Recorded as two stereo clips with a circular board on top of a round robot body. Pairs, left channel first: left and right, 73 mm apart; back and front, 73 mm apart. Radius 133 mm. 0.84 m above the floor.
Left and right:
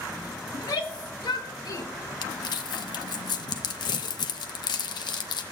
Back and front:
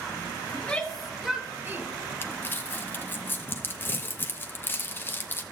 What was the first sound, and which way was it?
A shout, 105° left.